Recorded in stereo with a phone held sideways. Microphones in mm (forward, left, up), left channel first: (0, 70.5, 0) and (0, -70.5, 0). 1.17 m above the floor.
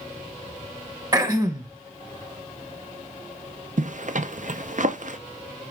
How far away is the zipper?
About 0.6 m.